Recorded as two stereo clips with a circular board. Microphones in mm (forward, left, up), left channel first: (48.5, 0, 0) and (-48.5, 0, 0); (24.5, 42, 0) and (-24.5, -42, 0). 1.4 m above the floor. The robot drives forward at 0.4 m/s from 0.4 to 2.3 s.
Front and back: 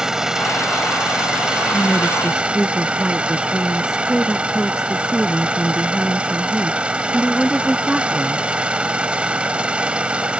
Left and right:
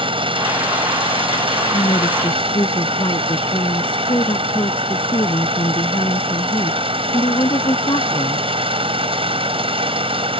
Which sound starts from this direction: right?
An engine running, at 0.0 s.